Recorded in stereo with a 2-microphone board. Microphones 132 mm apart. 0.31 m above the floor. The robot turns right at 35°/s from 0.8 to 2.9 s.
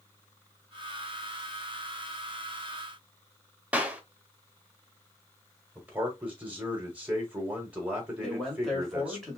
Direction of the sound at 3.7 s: 10° right (ahead or behind).